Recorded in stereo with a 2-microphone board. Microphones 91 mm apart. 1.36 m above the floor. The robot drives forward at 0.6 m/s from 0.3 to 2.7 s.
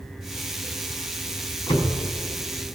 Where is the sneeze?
No sneeze in this recording.